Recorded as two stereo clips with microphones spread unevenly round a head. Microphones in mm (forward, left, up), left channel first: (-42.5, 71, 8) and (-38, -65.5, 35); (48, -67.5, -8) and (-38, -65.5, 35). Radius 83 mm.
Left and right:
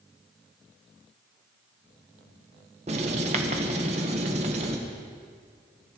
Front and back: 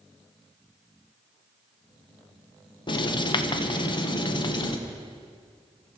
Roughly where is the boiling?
No boiling in this recording.